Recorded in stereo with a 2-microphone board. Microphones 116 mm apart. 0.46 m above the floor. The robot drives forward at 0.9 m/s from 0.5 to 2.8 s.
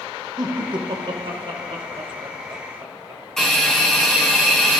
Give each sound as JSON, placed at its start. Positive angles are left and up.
{"t": 0.4, "sound": "laughter", "side_deg": -40, "distance_m": 1.5}
{"t": 3.4, "sound": "a hiss", "side_deg": 5, "distance_m": 4.5}